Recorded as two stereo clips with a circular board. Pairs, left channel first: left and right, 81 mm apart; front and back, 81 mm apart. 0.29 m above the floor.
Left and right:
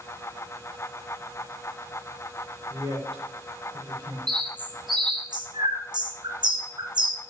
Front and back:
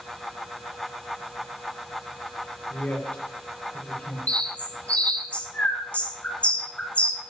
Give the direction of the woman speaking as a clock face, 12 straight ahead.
2 o'clock.